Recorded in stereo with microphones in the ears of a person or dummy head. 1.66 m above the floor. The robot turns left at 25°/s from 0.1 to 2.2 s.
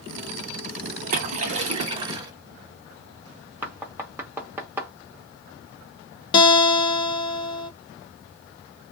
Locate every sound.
1.1 s a splash: 50° right (ahead or behind), 0.8 m; by 2.3 s 25° right (ahead or behind), 0.8 m
3.6 s knocking: 5° right (ahead or behind), 0.6 m
6.3 s a guitar: 35° left (ahead or behind), 0.8 m